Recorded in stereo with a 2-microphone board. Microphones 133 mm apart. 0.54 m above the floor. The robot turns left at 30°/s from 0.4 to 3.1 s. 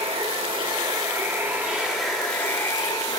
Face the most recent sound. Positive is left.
turn(degrees=150)